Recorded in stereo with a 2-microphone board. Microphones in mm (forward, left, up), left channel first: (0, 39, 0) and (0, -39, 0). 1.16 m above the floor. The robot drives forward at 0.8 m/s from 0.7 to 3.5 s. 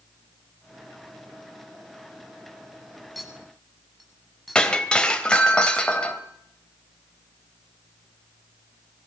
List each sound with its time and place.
3.1 s a clink: centre (ahead or behind), 8 m
4.5 s breaking glass: 10° left (ahead or behind), 3 m